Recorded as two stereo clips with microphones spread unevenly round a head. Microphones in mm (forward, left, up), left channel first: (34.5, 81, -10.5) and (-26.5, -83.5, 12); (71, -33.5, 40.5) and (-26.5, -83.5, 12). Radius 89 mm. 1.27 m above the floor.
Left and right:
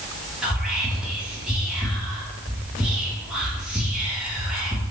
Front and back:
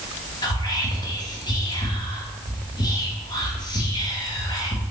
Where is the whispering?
25° right, 1.2 m.